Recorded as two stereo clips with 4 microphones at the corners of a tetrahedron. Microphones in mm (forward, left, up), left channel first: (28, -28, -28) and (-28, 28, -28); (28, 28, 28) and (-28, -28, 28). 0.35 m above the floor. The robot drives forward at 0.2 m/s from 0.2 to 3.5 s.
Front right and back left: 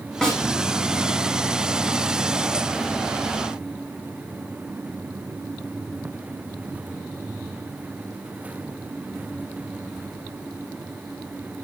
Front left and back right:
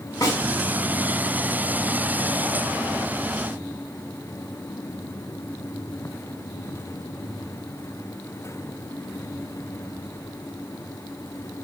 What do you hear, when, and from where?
0.2 s a snare drum: 35° left, 1.4 m